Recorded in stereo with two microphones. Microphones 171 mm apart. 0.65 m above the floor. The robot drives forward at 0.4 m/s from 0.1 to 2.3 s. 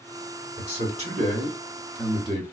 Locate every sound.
0.6 s a man speaking: 45° right (ahead or behind), 1.8 m; by 2.4 s 35° right (ahead or behind), 2.5 m